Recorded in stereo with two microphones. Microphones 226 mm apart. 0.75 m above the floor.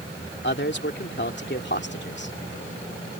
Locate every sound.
0.4 s a man speaking: 50° left (ahead or behind)